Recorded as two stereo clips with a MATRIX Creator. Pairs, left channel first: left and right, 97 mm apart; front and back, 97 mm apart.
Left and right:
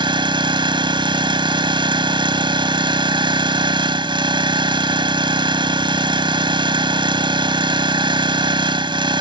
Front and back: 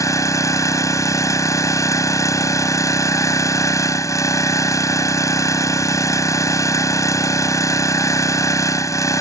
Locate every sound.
0.0 s an engine running: 55° right